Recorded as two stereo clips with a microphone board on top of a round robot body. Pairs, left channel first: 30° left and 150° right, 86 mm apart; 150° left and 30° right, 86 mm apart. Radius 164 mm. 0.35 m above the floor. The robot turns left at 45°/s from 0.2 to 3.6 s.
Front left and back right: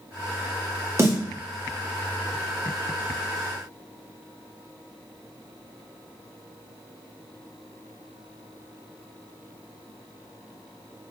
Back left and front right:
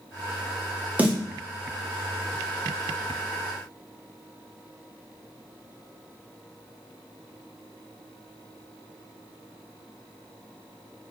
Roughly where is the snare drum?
Right.